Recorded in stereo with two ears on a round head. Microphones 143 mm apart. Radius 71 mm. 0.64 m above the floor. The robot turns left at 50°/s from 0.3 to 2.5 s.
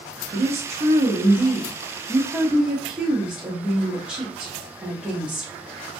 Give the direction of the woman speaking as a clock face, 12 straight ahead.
2 o'clock.